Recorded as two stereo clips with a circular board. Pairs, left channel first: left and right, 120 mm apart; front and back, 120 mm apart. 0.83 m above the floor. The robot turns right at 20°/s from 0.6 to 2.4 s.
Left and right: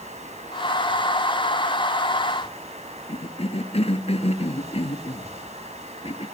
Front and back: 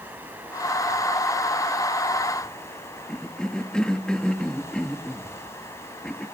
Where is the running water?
105° right, 4.5 m; by 6.4 s 70° right, 4.5 m.